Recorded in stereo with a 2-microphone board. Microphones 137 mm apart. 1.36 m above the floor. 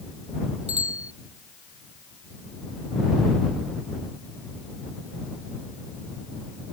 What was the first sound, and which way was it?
A bicycle bell, 50° right (ahead or behind).